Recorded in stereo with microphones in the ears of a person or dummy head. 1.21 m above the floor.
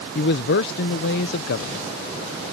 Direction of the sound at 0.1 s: 55° left (ahead or behind).